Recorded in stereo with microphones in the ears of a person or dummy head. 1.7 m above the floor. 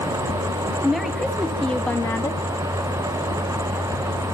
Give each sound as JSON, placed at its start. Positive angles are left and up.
{"t": 0.8, "sound": "a woman speaking", "side_deg": 0, "distance_m": 3.0}